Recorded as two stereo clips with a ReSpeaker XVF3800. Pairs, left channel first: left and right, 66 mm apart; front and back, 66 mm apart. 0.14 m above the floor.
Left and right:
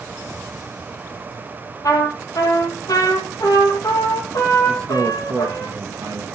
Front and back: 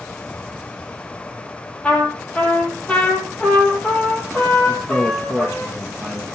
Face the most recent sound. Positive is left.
turn(degrees=-80)